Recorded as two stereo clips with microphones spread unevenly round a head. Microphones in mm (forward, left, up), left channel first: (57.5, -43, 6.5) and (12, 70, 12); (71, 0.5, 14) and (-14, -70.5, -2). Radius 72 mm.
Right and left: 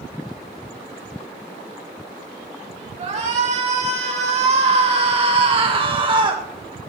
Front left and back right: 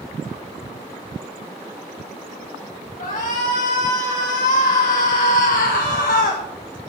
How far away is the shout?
About 3.5 m.